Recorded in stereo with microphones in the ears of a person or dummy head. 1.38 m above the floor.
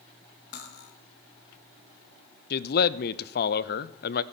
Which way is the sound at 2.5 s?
60° left (ahead or behind).